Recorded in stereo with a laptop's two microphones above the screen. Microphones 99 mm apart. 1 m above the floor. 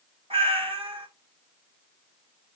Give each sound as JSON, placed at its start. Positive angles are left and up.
{"t": 0.3, "sound": "a cat meowing", "side_deg": -75, "distance_m": 1.7}